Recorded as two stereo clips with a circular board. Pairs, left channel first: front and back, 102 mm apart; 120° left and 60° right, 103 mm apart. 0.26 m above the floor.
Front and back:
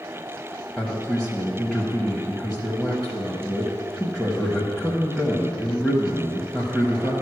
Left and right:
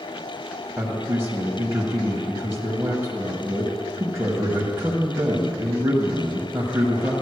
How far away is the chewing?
I don't hear chewing.